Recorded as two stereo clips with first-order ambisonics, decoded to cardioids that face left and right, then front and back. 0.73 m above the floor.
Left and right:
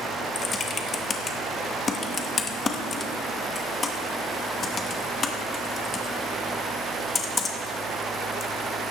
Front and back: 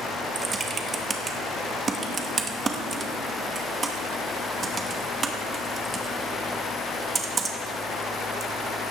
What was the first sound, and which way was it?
Typing on a keyboard, 135° left.